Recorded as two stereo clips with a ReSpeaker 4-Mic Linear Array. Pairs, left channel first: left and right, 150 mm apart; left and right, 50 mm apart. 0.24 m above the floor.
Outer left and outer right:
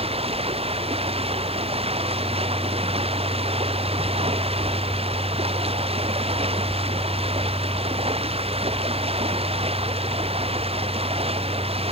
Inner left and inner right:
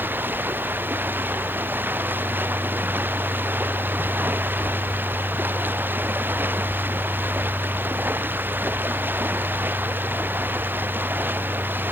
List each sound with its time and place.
0.0 s running water: 40° right (ahead or behind)